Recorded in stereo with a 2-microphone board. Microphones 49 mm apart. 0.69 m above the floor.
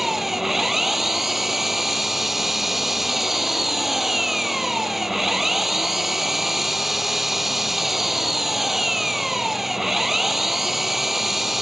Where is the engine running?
5° right (ahead or behind).